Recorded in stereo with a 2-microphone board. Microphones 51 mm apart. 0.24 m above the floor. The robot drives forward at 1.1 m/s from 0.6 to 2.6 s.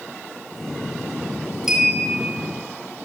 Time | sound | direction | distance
1.7 | a clink | 5° right (ahead or behind) | 3 m